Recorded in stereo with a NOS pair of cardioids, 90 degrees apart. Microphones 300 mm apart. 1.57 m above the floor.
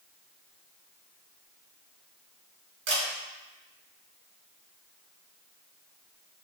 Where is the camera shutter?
70° right, 1.4 m.